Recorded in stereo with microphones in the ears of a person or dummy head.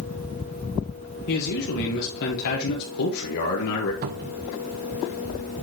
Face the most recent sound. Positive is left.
turn(degrees=-50)  # may be behind; listen again after turning